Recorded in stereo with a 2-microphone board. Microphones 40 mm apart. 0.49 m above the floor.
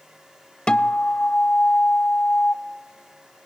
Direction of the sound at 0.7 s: 25° left (ahead or behind).